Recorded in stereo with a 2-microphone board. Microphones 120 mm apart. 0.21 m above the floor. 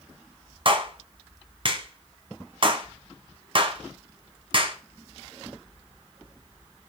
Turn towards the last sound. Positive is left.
turn(degrees=-45)  # may be behind; listen again after turning